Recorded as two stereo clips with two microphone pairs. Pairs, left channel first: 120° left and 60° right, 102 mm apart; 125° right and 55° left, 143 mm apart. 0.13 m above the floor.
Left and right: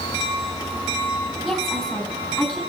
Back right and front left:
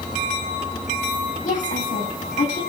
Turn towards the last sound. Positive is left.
turn(degrees=-150)